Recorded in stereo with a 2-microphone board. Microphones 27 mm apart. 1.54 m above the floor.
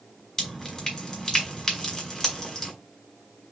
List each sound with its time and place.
0.4 s dripping: 15° left (ahead or behind), 1.9 m